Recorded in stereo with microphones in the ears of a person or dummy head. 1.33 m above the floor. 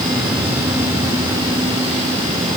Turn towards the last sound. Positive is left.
No sound to turn to.